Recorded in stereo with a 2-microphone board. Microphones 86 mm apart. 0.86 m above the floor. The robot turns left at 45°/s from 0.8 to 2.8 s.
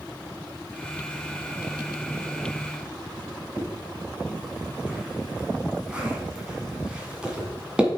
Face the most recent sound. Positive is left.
turn(degrees=-10)  # may be behind; listen again after turning